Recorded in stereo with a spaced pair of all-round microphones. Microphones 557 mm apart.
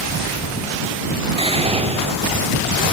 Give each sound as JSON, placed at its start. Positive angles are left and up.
{"t": 1.4, "sound": "whispering", "side_deg": -10}